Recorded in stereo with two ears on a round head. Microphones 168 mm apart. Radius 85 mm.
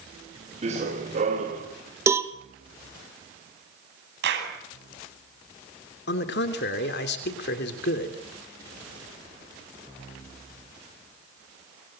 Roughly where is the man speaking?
Left.